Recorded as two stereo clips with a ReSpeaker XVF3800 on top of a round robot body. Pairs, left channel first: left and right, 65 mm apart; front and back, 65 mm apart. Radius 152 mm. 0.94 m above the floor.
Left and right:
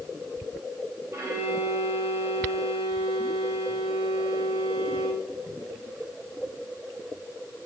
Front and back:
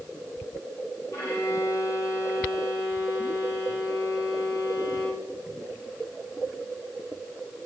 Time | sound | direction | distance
1.1 | a violin | 45° right | 10 m